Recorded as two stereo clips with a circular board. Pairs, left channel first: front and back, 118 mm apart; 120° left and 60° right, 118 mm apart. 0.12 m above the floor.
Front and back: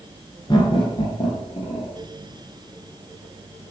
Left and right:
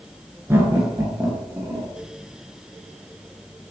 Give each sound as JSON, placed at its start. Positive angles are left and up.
{"t": 0.5, "sound": "laughter", "azimuth_deg": -5, "distance_m": 1.6}